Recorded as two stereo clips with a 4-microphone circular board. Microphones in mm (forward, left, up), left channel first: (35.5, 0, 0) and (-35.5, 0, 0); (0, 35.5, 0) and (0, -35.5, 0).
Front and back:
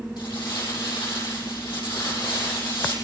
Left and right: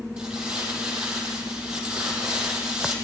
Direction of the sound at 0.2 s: 10° right.